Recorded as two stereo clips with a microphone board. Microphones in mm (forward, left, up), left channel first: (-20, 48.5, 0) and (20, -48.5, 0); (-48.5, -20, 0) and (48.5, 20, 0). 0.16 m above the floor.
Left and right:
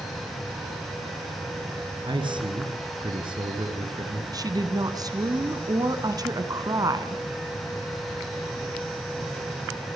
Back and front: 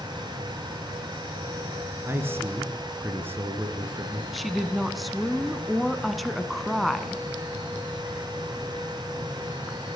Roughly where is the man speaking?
Ahead right.